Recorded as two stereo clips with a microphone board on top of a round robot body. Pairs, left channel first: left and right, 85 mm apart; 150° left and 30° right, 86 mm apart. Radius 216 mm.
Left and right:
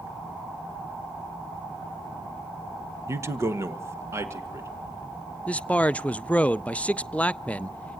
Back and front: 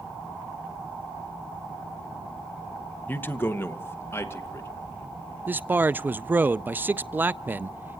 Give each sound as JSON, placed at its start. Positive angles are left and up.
{"t": 3.1, "sound": "a man speaking", "azimuth_deg": -145, "distance_m": 1.3}
{"t": 5.5, "sound": "a man speaking", "azimuth_deg": 25, "distance_m": 0.6}